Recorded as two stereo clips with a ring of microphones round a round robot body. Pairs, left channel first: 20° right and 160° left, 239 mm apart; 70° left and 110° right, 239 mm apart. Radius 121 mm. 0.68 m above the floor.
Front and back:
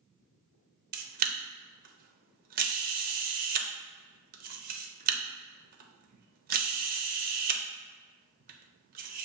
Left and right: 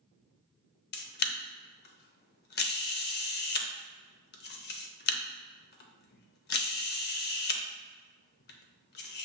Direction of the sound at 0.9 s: 110° left.